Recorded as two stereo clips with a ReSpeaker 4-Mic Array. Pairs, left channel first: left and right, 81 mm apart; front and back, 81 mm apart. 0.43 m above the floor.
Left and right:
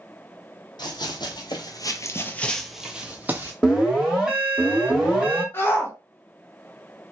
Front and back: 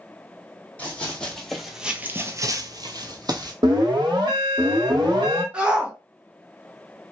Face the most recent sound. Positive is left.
turn(degrees=120)